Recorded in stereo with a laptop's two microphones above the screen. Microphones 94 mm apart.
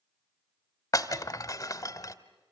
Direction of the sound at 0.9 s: 35° left (ahead or behind).